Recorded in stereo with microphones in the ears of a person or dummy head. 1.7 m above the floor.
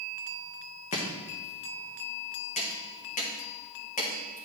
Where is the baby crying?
No baby crying in this recording.